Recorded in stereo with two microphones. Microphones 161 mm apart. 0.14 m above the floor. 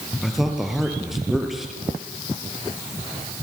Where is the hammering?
No hammering in this recording.